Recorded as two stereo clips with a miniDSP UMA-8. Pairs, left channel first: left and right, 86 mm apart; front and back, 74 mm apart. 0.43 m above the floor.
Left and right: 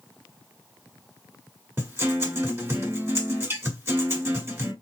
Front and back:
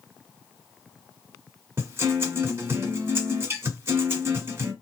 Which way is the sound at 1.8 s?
140° right.